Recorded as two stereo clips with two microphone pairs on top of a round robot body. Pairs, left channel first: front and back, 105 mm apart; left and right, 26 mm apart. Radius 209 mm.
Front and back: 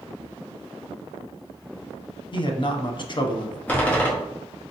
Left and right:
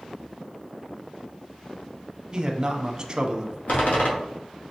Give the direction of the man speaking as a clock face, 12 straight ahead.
1 o'clock.